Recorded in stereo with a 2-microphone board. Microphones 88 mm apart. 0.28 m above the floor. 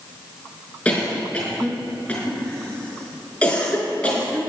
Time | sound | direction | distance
0.8 | a cough | 15° left (ahead or behind) | 5 m